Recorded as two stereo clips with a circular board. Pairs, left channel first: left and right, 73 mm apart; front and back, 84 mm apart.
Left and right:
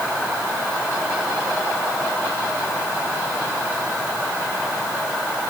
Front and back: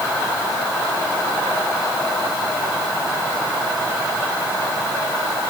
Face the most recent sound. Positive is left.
No sound to turn to.